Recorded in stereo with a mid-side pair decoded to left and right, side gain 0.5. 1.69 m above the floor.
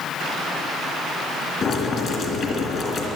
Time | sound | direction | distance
1.6 | boiling | 55° left | 3.5 m